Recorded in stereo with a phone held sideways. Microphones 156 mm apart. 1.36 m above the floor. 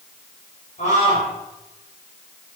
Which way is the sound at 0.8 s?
50° left (ahead or behind).